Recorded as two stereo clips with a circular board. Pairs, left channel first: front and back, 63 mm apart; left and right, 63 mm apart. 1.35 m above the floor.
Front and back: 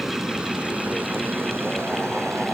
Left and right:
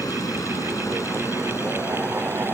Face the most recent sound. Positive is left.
turn(degrees=140)